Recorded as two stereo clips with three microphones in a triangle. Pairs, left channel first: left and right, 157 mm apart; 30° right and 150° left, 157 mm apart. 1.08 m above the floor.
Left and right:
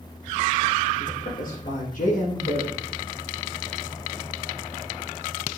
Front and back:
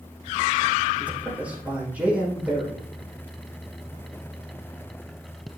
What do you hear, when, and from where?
1.0 s a man speaking: 70° left, 4.5 m